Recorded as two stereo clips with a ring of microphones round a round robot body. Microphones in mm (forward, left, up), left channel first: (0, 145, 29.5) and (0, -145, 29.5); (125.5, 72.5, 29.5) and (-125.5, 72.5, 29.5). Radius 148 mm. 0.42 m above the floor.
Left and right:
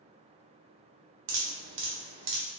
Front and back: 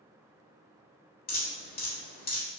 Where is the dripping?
50° right, 1.1 m.